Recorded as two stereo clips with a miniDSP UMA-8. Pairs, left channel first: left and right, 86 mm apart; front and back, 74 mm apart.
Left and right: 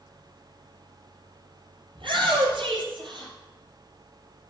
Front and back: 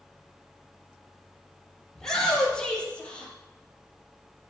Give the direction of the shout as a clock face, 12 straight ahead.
3 o'clock.